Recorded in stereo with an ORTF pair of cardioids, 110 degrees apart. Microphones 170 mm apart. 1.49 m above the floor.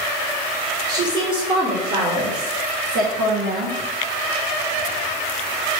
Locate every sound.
0.9 s a woman speaking: 20° right, 2.0 m; by 3.8 s 75° right, 1.9 m